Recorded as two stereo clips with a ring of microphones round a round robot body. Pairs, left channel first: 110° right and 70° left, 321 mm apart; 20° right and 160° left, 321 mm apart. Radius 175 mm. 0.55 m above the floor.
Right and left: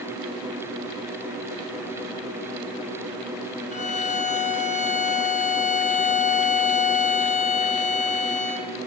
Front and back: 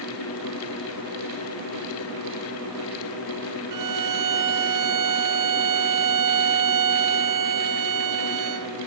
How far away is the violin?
About 2.5 m.